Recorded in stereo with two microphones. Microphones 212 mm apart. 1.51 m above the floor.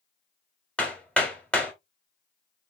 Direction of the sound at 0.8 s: 5° left (ahead or behind).